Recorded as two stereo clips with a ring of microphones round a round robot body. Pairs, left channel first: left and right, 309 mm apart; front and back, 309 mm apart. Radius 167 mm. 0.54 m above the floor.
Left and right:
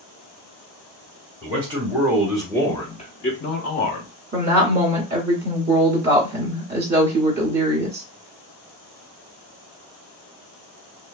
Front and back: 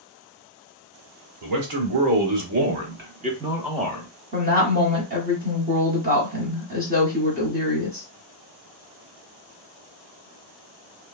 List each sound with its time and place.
1.4 s a man speaking: 165° right, 1.4 m; by 4.1 s 75° left, 0.9 m
4.3 s a woman speaking: 130° right, 1.3 m